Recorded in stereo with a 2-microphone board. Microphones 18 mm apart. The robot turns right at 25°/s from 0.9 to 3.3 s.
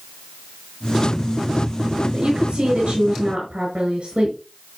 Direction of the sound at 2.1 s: 70° right (ahead or behind).